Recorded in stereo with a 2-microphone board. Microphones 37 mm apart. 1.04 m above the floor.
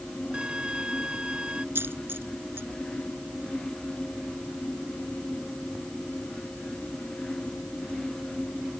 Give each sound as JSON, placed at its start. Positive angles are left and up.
{"t": 0.3, "sound": "a violin", "side_deg": -25}
{"t": 1.8, "sound": "a dropped coin", "side_deg": -80}